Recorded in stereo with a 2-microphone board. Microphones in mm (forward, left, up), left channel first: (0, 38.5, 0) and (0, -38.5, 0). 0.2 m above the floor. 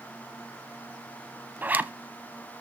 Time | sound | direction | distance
1.6 | a zipper | 25° right (ahead or behind) | 0.7 m